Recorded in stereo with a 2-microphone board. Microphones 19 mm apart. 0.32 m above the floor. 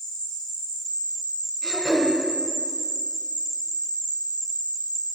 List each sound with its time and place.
0.0 s an insect: 65° left (ahead or behind), 2.5 m
1.6 s throat clearing: 15° right (ahead or behind), 1.7 m